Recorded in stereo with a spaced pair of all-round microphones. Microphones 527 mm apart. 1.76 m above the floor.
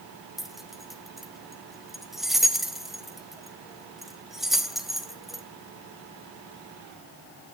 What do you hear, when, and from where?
0.4 s keys jangling: centre (ahead or behind), 0.8 m